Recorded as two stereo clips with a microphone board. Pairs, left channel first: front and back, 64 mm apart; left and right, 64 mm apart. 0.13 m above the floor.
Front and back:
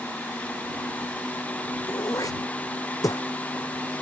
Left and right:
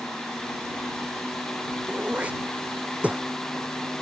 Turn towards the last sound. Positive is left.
turn(degrees=-20)